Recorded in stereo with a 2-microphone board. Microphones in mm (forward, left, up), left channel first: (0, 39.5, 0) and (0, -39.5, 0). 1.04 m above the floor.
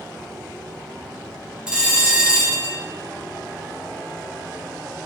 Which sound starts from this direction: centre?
A bell, at 1.7 s.